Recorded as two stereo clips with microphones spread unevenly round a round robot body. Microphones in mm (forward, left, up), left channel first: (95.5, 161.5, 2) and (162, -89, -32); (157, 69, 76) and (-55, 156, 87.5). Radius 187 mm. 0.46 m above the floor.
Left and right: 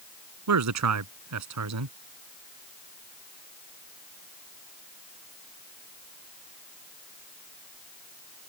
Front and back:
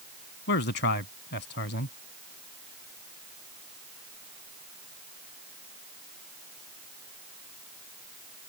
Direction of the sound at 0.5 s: 70° right.